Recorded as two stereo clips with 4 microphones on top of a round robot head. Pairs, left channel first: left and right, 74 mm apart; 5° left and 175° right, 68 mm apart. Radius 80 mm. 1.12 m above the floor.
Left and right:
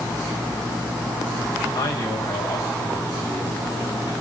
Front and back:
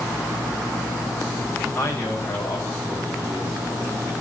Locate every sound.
1.8 s a man speaking: 65° left, 8.5 m